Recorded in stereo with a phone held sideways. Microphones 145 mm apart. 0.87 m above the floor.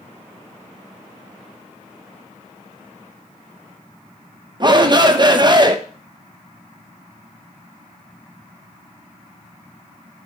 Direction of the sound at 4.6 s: 30° right (ahead or behind).